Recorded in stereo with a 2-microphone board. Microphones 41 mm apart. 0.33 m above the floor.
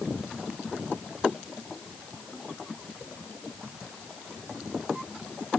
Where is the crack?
I don't hear a crack.